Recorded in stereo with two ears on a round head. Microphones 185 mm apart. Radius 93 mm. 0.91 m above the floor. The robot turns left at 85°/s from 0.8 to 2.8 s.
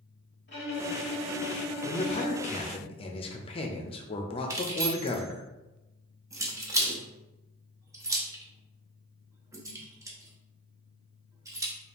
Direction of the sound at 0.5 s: 120° left.